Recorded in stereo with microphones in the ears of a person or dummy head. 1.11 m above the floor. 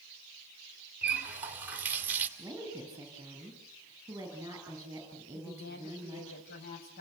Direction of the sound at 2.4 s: 15° right (ahead or behind).